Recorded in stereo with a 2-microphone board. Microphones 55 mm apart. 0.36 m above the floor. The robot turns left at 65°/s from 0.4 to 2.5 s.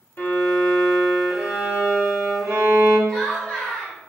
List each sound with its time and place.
0.2 s a violin: 55° left, 0.8 m; by 3.0 s 85° right, 0.8 m
3.1 s laughter: 10° left (ahead or behind), 1.3 m